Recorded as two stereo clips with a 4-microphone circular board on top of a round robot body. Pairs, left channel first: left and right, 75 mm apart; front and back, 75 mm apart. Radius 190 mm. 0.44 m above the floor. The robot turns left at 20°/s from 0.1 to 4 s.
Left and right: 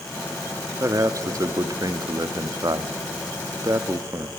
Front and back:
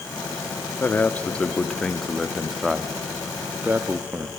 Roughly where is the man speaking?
Ahead right.